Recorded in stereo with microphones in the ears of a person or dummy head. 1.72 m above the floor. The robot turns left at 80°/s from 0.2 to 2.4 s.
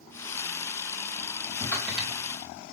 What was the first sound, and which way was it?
Typing on a keyboard, centre (ahead or behind).